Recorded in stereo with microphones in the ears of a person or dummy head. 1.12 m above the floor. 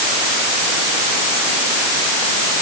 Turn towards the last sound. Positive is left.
No sound to turn to.